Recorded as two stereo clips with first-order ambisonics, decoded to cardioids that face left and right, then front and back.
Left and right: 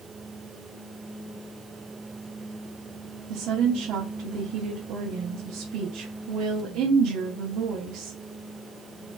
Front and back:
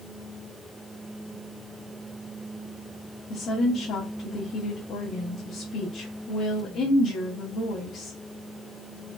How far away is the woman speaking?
About 0.6 m.